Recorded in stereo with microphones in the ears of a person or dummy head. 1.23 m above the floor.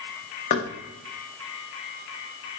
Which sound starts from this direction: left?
Knocking, at 0.5 s.